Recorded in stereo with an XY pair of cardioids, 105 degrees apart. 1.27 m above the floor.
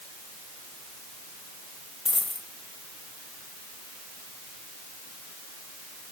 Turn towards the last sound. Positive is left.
turn(degrees=25)